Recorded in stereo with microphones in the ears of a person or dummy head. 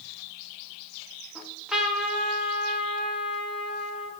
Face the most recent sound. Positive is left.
turn(degrees=0)  # may be behind; listen again after turning